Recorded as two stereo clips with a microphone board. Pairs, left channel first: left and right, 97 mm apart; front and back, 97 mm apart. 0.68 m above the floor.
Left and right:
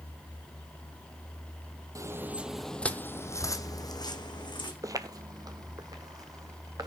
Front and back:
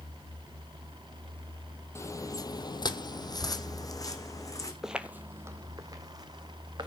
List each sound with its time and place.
1.9 s footsteps: 50° right, 0.9 m; by 4.7 s 55° left, 2 m
4.8 s footsteps: 100° right, 0.8 m; by 6.9 s 140° right, 2 m